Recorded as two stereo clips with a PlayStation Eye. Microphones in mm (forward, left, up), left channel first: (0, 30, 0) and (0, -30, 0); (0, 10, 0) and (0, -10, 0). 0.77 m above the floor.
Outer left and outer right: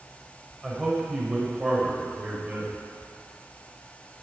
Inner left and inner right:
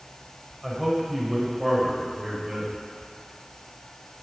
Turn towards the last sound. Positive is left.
turn(degrees=-25)  # may be behind; listen again after turning